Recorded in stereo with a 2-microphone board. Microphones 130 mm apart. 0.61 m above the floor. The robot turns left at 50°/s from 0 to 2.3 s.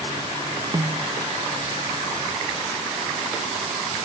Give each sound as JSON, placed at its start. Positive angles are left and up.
{"t": 0.7, "sound": "a snare drum", "side_deg": -25, "distance_m": 0.6}